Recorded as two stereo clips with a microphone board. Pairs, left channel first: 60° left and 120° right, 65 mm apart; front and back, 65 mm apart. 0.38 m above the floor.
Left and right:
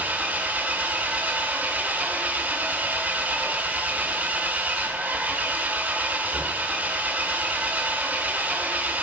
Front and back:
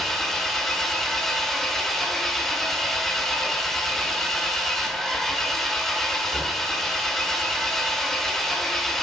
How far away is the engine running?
About 1.2 m.